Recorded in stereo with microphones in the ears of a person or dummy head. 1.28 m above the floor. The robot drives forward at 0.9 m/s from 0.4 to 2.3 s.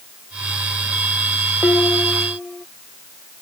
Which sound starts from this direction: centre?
Dishes clattering, at 1.6 s.